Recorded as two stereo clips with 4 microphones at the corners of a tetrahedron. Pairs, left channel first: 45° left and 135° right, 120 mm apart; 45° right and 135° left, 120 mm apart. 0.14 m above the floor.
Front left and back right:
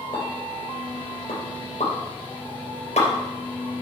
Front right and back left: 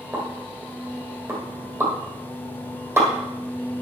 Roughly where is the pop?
Ahead left.